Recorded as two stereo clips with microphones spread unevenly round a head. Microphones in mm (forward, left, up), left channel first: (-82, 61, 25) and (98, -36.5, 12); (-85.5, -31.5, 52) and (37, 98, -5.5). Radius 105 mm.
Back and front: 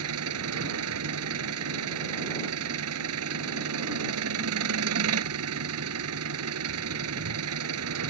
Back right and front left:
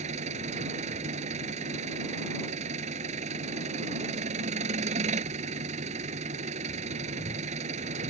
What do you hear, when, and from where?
0.0 s an engine running: 15° right